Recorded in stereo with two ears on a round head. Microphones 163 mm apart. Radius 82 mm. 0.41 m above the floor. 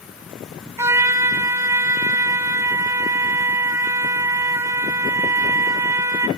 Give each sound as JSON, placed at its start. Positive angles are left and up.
{"t": 0.8, "sound": "a trumpet", "side_deg": -15, "distance_m": 0.5}